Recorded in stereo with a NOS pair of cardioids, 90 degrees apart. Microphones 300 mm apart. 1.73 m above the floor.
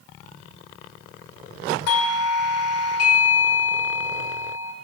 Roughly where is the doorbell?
Ahead left.